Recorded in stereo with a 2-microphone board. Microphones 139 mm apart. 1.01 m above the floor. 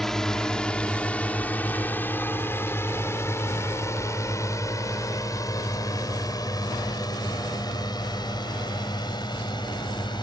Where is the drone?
5° left (ahead or behind); by 10.2 s 35° left (ahead or behind).